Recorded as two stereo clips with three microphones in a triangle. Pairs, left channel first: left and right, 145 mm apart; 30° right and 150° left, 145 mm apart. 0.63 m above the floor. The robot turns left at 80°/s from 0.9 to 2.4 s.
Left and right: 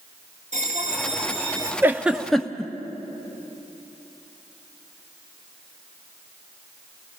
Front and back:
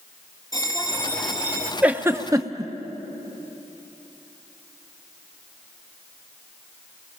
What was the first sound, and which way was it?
A bell, 90° right.